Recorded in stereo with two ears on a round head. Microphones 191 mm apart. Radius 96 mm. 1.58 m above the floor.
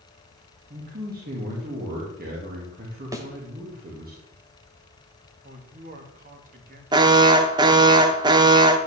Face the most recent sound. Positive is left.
turn(degrees=-20)  # may be behind; listen again after turning